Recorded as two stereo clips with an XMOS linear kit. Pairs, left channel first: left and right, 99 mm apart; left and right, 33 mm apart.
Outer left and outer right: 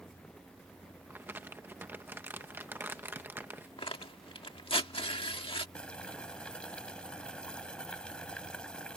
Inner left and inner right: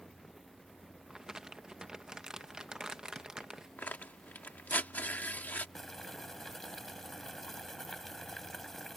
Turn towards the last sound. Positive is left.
turn(degrees=10)  # may be behind; listen again after turning